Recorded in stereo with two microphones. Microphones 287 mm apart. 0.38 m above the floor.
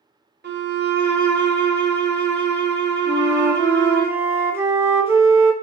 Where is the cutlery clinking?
No cutlery clinking in this recording.